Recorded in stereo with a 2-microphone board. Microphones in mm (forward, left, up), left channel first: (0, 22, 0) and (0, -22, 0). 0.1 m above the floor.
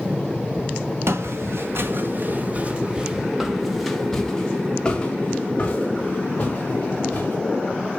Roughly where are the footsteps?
Right.